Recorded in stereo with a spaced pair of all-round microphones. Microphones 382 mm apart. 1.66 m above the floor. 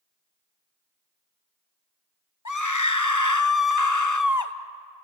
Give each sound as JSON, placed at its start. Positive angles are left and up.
{"t": 2.5, "sound": "a scream", "side_deg": 50, "distance_m": 1.1}